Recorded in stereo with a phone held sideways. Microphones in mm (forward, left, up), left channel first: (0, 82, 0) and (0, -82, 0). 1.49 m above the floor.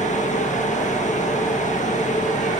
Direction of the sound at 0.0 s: 50° left (ahead or behind).